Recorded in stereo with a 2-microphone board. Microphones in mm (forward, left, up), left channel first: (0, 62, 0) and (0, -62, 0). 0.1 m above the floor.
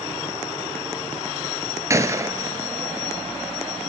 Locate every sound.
1.9 s a gunshot: 25° right (ahead or behind), 1.9 m